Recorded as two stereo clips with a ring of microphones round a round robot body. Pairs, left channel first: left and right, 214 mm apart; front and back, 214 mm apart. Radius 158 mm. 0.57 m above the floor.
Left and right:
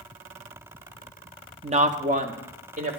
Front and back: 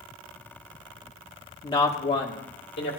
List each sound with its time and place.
1.6 s a woman speaking: 60° right, 0.7 m; by 3.0 s 40° right, 1.8 m